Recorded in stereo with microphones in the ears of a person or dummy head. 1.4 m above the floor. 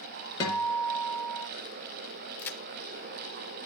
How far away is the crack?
About 0.7 m.